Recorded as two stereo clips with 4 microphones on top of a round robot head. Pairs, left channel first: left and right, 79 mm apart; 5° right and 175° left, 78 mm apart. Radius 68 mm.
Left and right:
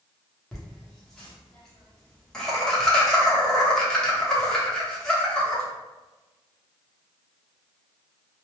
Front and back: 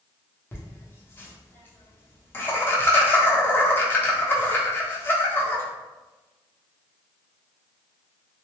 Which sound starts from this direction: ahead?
Laughter, at 0.5 s.